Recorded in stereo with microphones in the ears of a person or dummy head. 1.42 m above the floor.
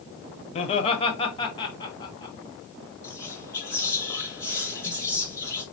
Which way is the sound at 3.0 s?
15° left (ahead or behind).